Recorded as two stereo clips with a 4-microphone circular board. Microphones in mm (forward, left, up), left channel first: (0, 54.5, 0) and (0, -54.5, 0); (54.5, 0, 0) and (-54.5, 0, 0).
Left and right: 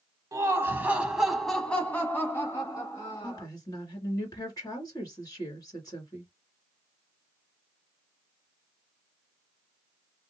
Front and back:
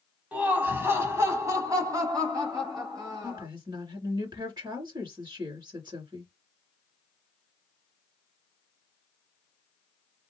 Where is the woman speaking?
140° left, 2.5 m.